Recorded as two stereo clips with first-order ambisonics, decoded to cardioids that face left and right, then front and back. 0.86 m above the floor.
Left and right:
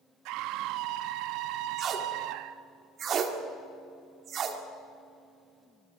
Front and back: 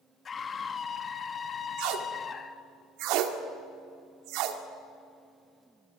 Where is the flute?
I don't hear a flute.